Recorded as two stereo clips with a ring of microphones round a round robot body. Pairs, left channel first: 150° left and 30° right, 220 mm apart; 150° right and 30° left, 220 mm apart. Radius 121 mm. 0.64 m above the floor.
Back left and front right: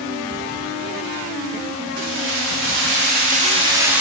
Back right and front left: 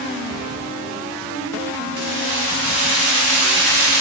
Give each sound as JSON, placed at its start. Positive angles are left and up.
{"t": 2.0, "sound": "keys jangling", "azimuth_deg": -10, "distance_m": 2.5}